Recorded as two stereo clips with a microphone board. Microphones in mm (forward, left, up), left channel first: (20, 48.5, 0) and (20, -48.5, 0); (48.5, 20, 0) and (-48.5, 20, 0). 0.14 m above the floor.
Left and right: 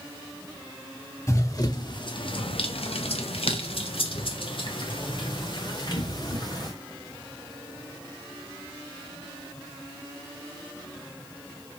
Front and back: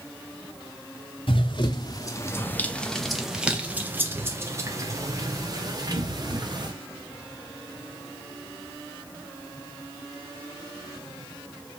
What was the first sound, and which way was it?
Running footsteps, 30° left.